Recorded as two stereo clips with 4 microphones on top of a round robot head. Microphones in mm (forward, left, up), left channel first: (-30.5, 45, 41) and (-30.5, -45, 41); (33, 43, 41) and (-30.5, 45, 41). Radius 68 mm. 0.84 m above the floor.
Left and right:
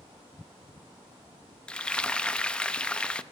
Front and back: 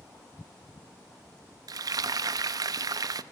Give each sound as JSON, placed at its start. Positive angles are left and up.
{"t": 1.7, "sound": "frying", "azimuth_deg": 170, "distance_m": 0.6}